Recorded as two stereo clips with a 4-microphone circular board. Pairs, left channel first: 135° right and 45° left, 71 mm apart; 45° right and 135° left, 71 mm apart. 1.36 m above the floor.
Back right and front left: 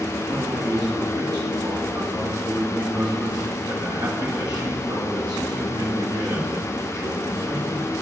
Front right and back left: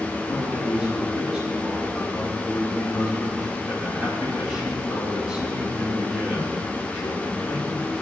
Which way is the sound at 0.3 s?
60° left.